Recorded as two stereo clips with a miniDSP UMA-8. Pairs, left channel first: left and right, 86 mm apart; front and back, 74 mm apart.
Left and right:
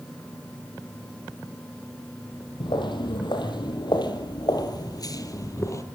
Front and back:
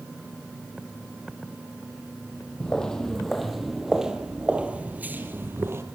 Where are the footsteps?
80° left, 3 m; by 5.8 s 135° left, 2.5 m.